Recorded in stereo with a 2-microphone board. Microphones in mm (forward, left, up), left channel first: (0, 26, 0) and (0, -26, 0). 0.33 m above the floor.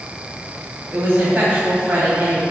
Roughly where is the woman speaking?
Right.